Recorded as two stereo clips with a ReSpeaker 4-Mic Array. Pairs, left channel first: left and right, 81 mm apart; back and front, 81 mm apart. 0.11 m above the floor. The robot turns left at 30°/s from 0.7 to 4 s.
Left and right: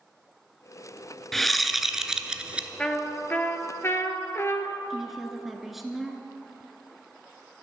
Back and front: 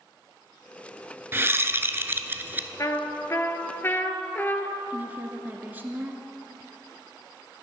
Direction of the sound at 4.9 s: 5° right.